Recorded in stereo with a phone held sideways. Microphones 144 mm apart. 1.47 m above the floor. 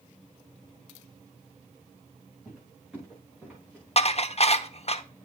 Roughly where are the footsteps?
Centre.